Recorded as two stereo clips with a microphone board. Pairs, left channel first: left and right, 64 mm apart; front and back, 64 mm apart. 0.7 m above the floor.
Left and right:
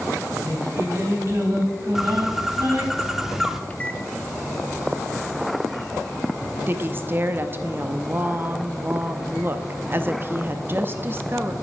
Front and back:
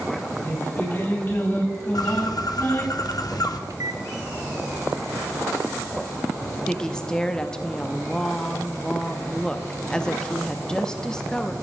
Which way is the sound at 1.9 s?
5° right.